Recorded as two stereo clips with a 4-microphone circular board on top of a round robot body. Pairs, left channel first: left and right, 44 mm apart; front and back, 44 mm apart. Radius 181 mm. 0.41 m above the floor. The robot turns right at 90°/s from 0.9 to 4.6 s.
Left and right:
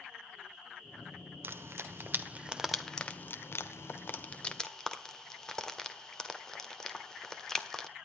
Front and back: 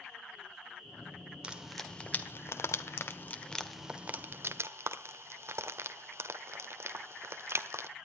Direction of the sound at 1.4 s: 120° right.